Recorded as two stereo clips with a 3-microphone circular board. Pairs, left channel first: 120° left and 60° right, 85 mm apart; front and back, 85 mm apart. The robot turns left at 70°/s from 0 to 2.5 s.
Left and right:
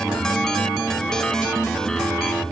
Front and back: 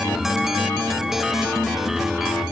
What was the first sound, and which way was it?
Only background noise.